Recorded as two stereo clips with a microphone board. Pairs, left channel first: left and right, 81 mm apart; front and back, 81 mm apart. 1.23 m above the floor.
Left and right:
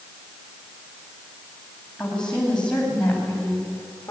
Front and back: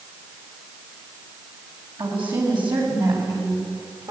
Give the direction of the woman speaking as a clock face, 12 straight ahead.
6 o'clock.